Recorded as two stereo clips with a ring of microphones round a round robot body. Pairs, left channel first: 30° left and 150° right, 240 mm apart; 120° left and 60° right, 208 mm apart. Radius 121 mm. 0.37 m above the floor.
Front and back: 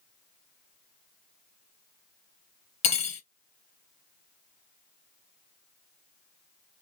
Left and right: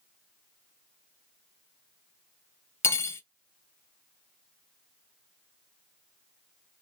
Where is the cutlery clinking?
55° left, 0.6 m.